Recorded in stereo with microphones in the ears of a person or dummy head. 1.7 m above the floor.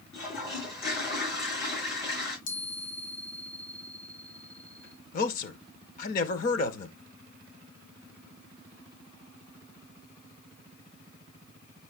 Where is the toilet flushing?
55° left (ahead or behind), 9 m.